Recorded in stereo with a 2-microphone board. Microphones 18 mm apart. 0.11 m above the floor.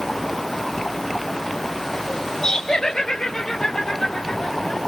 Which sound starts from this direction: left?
Laughter, at 2.4 s.